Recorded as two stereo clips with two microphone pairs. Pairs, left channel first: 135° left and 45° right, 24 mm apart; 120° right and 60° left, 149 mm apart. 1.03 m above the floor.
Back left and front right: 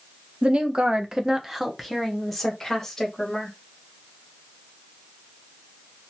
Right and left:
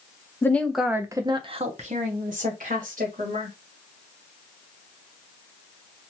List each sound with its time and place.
0.4 s a woman speaking: 55° right, 0.6 m; by 3.5 s 65° left, 1.4 m